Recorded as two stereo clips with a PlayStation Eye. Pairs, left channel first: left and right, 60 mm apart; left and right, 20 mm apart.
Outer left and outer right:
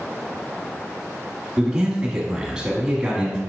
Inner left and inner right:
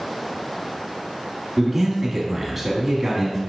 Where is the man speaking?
10° right (ahead or behind), 1.2 m.